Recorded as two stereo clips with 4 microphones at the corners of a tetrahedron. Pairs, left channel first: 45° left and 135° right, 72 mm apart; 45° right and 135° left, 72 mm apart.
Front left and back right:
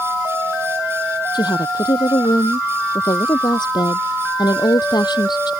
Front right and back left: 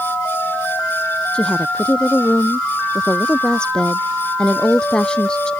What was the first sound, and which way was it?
A woman speaking, 35° left.